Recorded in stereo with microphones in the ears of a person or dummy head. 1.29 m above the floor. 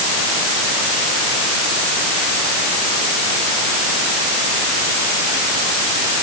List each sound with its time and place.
Only background noise.